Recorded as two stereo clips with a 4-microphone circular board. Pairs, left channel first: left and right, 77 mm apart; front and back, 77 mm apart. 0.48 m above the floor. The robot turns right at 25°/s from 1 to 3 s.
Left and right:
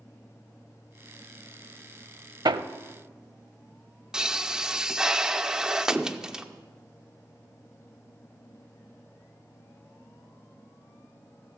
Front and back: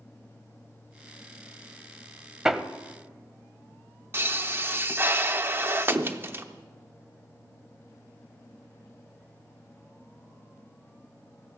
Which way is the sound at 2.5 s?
100° right.